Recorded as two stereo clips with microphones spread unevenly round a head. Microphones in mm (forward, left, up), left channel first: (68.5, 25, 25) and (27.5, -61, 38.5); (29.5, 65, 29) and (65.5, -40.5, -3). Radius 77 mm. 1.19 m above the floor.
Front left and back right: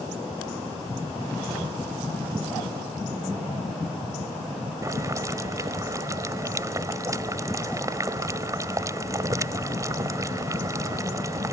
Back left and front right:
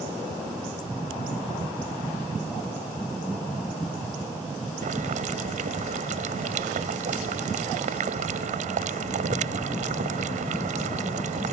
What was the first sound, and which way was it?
Boiling, 60° right.